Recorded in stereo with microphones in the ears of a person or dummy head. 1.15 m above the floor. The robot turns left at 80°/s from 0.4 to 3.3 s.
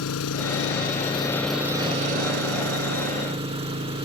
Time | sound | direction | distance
0.0 | an engine running | 85° left | ?